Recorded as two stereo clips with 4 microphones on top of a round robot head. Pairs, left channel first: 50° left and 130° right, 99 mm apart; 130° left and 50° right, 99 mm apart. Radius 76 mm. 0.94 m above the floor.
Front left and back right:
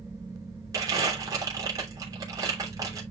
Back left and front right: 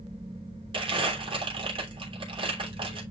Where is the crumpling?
80° right, 3 m.